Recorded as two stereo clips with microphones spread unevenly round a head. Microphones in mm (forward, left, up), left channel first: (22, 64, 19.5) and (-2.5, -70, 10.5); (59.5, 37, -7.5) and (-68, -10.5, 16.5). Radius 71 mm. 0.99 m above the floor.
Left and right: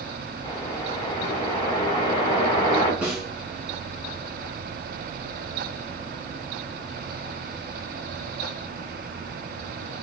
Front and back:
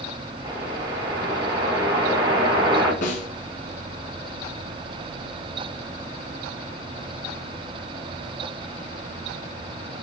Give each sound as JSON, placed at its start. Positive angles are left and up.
{"t": 0.4, "sound": "a whoosh", "azimuth_deg": 140, "distance_m": 4.0}
{"t": 3.0, "sound": "a snare drum", "azimuth_deg": -20, "distance_m": 2.0}